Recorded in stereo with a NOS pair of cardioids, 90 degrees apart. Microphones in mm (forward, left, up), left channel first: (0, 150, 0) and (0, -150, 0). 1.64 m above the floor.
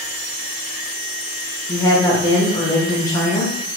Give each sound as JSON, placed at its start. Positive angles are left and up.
{"t": 1.7, "sound": "a woman speaking", "azimuth_deg": 15, "distance_m": 1.6}